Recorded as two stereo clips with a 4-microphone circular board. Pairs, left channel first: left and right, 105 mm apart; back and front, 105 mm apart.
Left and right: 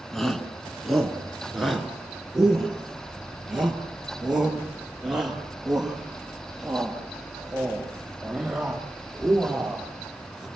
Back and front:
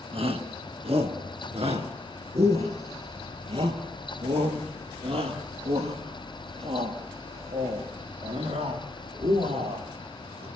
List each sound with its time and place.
0.1 s a shout: 5° left, 2.5 m; by 10.5 s 5° right, 9.5 m